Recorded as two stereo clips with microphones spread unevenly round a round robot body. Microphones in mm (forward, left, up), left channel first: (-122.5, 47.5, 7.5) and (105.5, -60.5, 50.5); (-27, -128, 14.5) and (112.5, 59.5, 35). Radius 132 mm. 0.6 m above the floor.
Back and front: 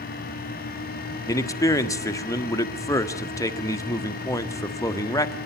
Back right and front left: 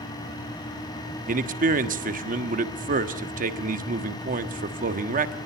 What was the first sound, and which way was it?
A man speaking, 95° left.